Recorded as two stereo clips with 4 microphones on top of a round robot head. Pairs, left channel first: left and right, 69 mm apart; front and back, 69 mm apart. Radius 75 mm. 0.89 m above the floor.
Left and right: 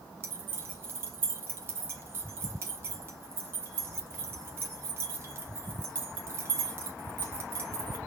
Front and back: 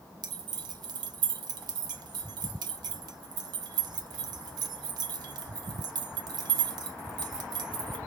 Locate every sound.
0.2 s keys jangling: 150° right, 1.0 m